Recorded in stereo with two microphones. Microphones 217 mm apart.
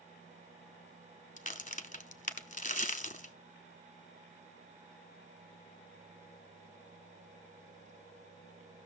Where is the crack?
35° left (ahead or behind), 0.8 m.